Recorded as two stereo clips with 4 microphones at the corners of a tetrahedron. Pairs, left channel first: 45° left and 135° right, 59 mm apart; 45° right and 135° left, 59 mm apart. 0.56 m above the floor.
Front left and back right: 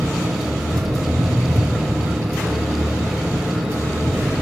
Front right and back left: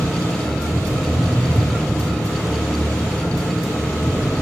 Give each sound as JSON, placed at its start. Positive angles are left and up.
{"t": 0.0, "sound": "an engine running", "azimuth_deg": -95, "distance_m": 3.5}